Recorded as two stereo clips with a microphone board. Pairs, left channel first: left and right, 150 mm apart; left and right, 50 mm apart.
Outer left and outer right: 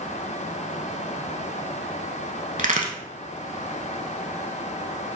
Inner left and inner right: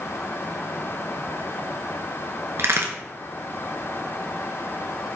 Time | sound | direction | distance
2.6 | a crack | 60° right (ahead or behind) | 0.8 m